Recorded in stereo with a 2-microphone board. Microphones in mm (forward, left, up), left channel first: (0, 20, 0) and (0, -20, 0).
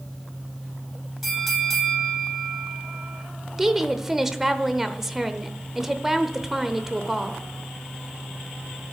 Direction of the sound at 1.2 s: Centre (ahead or behind).